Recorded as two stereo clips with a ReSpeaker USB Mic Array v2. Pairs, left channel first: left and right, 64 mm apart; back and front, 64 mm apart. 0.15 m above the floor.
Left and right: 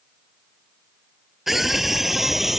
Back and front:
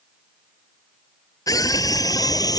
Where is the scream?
175° right.